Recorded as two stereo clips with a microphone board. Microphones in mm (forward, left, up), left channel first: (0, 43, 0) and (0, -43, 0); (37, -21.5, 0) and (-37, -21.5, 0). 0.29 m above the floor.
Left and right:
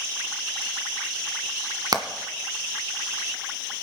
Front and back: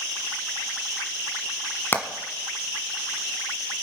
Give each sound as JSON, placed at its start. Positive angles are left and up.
{"t": 1.9, "sound": "hammering", "azimuth_deg": -55, "distance_m": 1.3}